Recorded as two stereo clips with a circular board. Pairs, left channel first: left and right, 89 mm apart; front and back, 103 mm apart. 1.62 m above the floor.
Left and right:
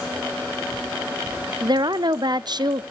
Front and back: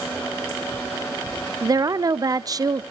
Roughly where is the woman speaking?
Behind right.